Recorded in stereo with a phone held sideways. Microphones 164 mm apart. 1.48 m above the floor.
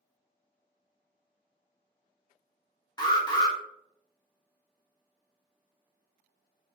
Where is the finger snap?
I don't hear a finger snap.